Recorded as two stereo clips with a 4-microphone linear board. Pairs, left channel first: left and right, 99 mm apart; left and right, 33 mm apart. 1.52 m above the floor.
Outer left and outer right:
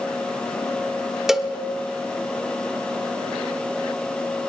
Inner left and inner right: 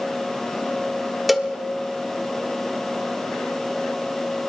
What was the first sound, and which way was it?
A cowbell, 5° right (ahead or behind).